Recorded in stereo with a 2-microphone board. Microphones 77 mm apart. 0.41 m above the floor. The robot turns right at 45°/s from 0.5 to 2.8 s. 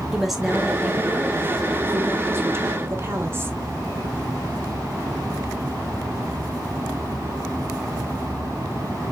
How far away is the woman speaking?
About 1.1 m.